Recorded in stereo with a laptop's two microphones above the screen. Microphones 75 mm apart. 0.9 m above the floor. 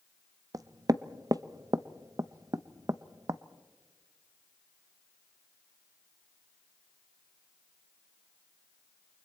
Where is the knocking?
45° right (ahead or behind), 0.5 m.